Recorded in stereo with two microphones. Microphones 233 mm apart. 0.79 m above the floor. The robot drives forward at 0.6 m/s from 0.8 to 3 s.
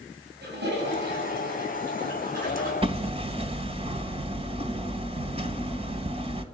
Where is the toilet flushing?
50° right (ahead or behind), 5.5 m; by 2.7 s 40° right (ahead or behind), 6 m.